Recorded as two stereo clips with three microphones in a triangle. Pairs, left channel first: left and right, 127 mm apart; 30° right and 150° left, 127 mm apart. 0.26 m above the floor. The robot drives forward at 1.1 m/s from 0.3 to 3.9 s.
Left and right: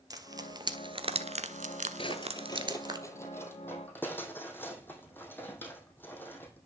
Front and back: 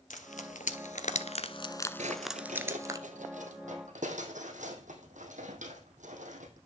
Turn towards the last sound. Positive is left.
turn(degrees=165)